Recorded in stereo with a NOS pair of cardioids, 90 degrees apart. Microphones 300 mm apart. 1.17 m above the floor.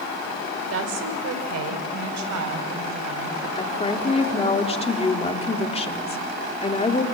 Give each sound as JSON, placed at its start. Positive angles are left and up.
{"t": 0.7, "sound": "a woman speaking", "azimuth_deg": -50, "distance_m": 4.0}
{"t": 3.6, "sound": "a woman speaking", "azimuth_deg": 20, "distance_m": 3.0}